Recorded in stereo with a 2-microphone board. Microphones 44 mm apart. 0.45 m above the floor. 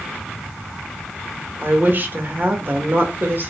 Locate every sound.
1.6 s a woman speaking: 45° right (ahead or behind), 1.1 m